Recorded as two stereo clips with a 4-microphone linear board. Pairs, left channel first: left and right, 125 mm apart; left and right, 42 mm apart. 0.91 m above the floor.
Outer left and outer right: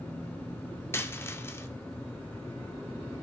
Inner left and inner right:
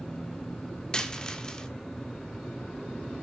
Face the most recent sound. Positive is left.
turn(degrees=20)  # may be behind; listen again after turning